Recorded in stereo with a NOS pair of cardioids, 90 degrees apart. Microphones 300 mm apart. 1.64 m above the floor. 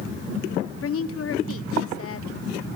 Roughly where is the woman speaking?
Ahead left.